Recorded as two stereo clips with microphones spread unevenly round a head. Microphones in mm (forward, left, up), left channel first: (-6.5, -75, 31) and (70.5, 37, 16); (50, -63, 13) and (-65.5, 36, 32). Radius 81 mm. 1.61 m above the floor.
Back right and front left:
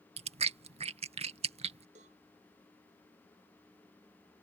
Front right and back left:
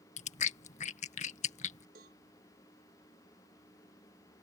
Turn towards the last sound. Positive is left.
turn(degrees=105)